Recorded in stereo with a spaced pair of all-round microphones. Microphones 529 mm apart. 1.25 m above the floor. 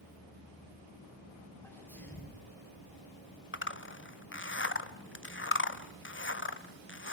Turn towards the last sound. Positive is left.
turn(degrees=25)  # may be behind; listen again after turning